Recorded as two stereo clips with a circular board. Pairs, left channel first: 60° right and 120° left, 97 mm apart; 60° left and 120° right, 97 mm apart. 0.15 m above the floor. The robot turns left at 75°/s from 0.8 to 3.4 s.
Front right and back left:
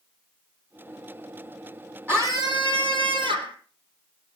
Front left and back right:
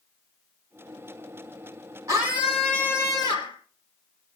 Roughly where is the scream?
Behind.